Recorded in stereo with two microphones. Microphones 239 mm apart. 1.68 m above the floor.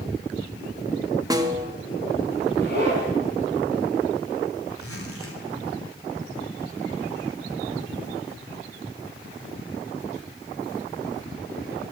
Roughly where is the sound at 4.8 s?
Left.